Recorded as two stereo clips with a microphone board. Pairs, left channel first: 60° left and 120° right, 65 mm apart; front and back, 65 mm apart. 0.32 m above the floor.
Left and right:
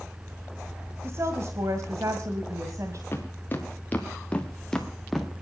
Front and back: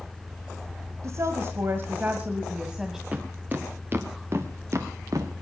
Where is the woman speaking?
160° right, 1.7 m; by 3.0 s 95° right, 1.9 m.